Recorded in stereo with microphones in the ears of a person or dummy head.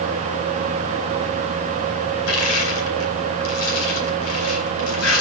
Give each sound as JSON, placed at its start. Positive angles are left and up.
{"t": 2.3, "sound": "crushing", "side_deg": 85, "distance_m": 4.5}